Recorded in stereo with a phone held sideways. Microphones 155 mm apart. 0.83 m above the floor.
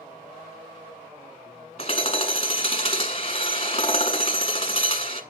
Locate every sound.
1.8 s hammering: 40° left (ahead or behind), 1.4 m